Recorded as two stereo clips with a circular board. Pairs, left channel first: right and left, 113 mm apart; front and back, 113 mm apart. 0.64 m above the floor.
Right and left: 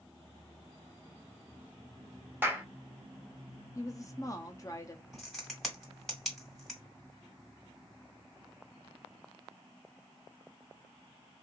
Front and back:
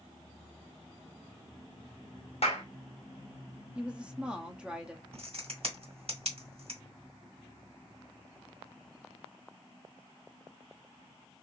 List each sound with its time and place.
2.4 s a clap: 20° left, 1.1 m
3.8 s a woman speaking: 105° right, 0.7 m
5.1 s a crack: straight behind, 2.0 m